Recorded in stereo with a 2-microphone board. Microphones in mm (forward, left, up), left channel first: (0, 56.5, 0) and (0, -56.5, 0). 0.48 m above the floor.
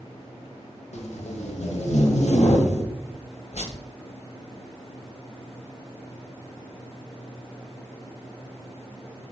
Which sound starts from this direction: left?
Tape being pulled, at 0.9 s.